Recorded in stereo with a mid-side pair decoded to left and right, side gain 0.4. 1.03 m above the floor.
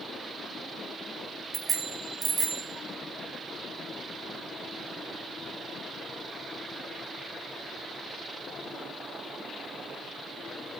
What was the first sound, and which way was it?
A bicycle bell, 50° right.